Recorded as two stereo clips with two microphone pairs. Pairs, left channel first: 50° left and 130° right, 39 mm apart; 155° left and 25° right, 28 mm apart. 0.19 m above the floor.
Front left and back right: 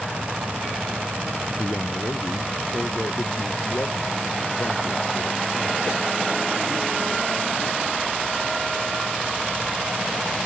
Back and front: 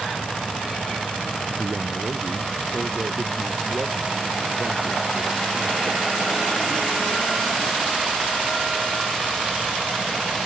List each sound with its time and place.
1.6 s a man speaking: 25° left; by 8.5 s 45° left